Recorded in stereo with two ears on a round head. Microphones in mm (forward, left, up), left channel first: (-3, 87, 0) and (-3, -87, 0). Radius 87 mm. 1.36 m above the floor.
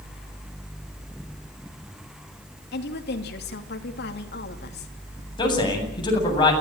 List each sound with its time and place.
2.7 s a woman speaking: 55° left (ahead or behind), 3 m
5.4 s a man speaking: 25° left (ahead or behind), 8.5 m